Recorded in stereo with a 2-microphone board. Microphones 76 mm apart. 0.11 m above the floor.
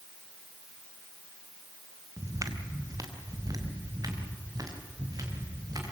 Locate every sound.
2.2 s footsteps: 50° right (ahead or behind), 2.5 m; by 5.9 s 55° right (ahead or behind), 7 m